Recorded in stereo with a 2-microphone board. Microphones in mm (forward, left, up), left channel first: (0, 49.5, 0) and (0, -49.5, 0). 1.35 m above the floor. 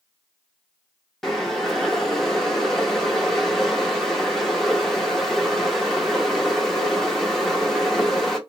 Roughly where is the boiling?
Centre.